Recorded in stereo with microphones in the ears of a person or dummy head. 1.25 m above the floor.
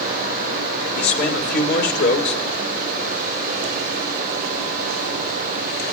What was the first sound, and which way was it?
A man speaking, 60° left (ahead or behind).